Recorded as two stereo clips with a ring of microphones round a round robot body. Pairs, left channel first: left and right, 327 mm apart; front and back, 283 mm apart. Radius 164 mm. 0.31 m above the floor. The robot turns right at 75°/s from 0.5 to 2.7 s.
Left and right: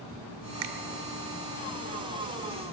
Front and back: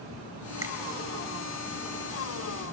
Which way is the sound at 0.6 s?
105° right.